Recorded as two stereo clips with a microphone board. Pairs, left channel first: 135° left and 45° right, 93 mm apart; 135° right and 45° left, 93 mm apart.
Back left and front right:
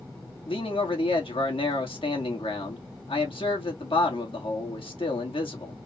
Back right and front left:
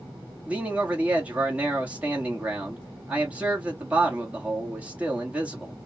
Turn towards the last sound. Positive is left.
turn(degrees=120)